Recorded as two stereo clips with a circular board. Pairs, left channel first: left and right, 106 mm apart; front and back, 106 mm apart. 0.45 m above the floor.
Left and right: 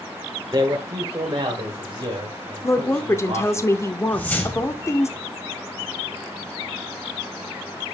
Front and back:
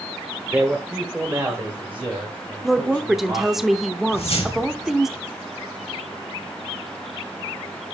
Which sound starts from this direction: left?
A woman speaking, at 2.6 s.